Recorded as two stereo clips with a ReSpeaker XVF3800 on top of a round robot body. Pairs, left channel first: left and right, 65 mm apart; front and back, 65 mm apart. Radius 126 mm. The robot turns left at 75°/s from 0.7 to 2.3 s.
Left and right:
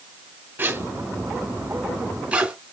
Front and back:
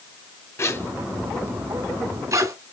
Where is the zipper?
35° right, 2 m; by 2.5 s 155° right, 2 m.